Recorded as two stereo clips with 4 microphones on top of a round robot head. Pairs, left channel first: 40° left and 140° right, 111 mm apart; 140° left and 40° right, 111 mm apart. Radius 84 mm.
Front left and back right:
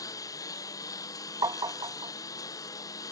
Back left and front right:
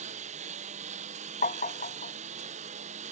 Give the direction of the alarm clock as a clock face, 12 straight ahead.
I don't hear an alarm clock.